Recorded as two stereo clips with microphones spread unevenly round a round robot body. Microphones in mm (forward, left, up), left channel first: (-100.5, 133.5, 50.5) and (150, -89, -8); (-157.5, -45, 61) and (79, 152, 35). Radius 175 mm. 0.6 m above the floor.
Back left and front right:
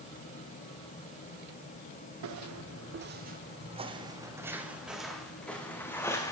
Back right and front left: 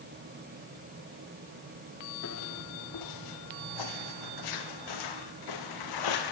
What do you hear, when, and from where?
2.2 s footsteps: 85° right, 1.6 m; by 6.3 s 140° right, 3.5 m